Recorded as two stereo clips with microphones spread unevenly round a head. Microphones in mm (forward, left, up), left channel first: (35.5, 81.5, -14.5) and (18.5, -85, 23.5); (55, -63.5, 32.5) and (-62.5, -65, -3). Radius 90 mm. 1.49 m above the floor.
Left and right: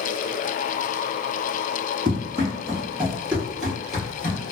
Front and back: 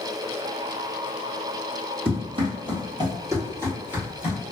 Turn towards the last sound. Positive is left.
turn(degrees=-25)